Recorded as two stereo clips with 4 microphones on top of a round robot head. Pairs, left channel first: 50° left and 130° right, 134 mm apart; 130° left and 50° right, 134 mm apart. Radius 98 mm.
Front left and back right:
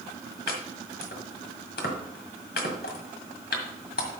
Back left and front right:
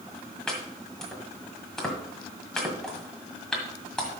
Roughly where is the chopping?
Ahead left.